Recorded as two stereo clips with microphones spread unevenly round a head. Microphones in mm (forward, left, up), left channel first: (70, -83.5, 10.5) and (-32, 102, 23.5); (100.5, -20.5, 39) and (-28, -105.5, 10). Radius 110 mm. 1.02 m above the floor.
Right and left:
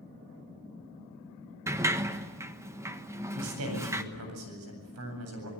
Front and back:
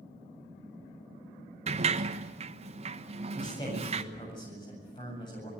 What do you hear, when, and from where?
1.7 s a sliding door: 165° right, 1.2 m
3.4 s a man speaking: 105° left, 8.5 m